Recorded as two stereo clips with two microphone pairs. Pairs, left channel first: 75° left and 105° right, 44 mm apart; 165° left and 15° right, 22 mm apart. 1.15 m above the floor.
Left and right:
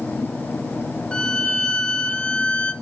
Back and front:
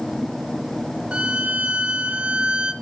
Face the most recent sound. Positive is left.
turn(degrees=5)